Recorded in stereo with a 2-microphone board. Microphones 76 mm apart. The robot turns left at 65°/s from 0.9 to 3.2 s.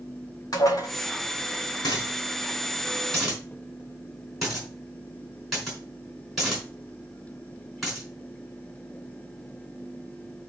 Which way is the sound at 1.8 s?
85° left.